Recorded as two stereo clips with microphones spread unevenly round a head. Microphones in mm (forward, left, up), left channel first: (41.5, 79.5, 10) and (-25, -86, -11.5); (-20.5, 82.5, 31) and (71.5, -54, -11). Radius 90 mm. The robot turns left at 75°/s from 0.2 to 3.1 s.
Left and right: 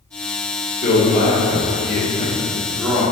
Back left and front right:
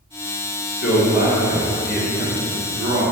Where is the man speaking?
135° left, 1.0 m; by 3.1 s 45° right, 1.0 m.